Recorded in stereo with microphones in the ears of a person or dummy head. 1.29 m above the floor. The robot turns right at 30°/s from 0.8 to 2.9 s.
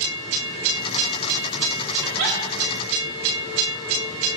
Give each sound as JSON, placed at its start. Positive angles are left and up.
{"t": 2.0, "sound": "a giggle", "side_deg": -75, "distance_m": 4.5}